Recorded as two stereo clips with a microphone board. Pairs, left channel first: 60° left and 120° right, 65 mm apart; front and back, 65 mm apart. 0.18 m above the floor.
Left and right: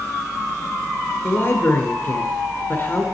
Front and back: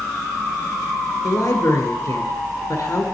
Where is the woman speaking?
20° left, 1.6 m.